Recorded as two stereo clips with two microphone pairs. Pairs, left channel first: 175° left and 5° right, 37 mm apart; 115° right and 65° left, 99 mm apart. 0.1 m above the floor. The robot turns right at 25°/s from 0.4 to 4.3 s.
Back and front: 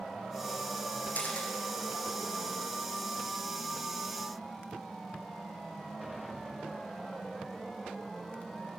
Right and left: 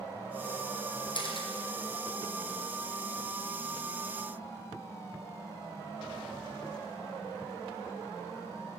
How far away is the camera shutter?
About 2.5 m.